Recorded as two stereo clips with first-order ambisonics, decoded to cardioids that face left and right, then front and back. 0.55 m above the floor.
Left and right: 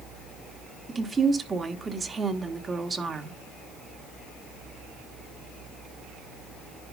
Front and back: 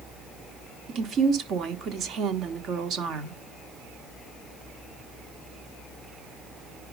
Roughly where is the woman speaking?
Behind right.